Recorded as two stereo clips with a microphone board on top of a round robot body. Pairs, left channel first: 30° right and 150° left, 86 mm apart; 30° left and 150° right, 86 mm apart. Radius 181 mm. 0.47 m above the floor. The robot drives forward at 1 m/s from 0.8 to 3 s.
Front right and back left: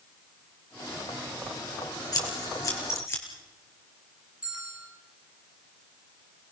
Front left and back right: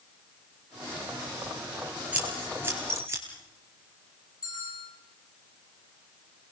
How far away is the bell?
About 9.5 m.